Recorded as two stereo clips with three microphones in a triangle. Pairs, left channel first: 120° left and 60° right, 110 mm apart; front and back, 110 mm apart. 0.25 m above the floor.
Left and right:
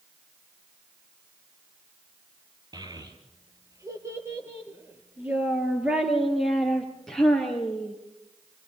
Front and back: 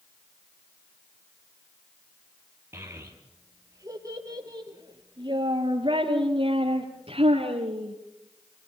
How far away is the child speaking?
About 3.5 m.